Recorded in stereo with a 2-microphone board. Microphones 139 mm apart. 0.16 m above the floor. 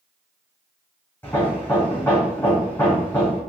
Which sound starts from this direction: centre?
Hammering, at 1.2 s.